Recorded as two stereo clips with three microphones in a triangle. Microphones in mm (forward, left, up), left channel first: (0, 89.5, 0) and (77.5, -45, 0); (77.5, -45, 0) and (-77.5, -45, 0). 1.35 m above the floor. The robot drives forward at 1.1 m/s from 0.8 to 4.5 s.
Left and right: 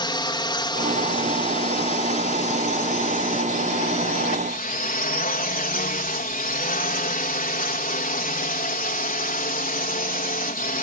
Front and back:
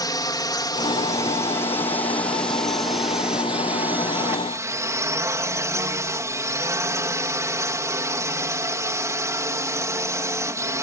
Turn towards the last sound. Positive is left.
turn(degrees=110)